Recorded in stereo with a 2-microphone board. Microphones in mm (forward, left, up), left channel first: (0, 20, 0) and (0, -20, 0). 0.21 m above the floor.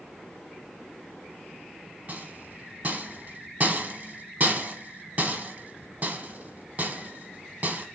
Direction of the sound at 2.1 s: 45° right (ahead or behind).